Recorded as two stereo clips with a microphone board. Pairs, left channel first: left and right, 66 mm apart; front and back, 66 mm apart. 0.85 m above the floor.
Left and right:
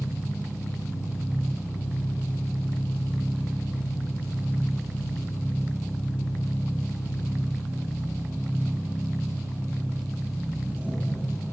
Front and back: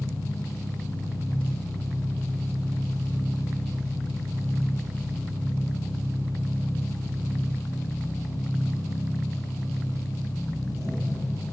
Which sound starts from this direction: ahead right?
An engine running, at 0.0 s.